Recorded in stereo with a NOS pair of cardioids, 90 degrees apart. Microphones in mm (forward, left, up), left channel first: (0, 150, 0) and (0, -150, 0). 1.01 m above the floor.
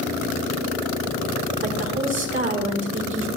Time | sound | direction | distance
1.6 | a woman speaking | 40° right | 3.5 m